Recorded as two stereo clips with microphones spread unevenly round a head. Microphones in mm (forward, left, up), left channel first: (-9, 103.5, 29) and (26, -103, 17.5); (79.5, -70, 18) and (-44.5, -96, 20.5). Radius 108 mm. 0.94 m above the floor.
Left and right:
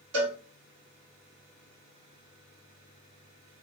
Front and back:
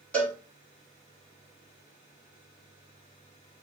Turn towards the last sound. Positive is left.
turn(degrees=-70)